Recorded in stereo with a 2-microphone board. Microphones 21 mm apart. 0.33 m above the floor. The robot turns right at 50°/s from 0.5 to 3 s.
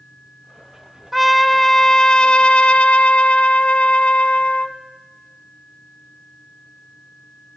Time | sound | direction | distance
1.1 | a trumpet | 10° right | 0.5 m